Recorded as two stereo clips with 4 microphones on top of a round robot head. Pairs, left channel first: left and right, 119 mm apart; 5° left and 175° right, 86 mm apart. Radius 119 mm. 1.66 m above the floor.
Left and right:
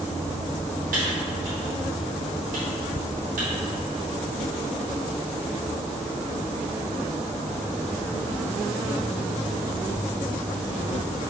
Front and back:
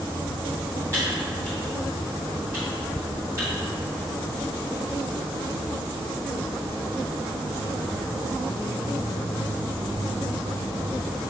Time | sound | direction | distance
0.9 | typing on a keyboard | 100° right | 0.7 m